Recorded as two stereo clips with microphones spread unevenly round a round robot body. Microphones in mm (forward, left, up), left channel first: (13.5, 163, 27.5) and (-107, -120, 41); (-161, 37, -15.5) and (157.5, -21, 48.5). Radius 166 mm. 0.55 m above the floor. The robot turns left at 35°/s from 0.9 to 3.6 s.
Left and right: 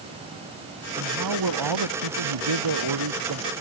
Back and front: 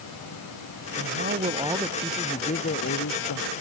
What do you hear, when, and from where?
0.9 s a man speaking: 65° right; by 3.5 s 155° right